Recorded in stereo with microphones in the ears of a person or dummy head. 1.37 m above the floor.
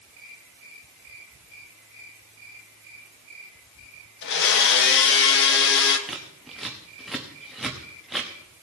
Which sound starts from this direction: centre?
Scissors, at 6.1 s.